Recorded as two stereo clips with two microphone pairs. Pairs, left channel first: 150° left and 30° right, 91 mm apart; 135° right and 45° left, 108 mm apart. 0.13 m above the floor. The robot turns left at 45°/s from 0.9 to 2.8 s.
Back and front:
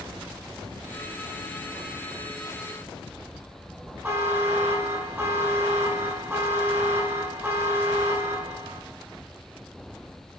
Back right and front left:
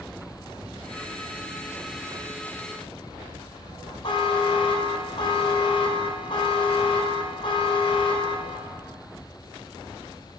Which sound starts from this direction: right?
A buzzer, at 4.0 s.